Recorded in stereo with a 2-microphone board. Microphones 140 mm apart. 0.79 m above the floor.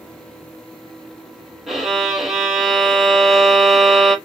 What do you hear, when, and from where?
1.7 s a violin: centre (ahead or behind), 1.2 m